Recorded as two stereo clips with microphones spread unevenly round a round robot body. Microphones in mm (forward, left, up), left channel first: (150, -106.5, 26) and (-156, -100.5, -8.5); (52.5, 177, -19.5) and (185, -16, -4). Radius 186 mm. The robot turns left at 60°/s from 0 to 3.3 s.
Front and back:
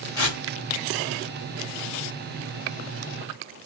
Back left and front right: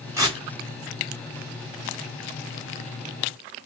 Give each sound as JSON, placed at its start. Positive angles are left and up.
{"t": 0.2, "sound": "tearing paper", "azimuth_deg": 25, "distance_m": 3.0}